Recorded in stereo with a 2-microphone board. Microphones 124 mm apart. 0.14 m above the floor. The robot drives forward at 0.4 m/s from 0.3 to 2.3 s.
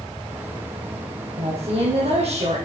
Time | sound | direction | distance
1.4 | a woman speaking | 55° right (ahead or behind) | 5 m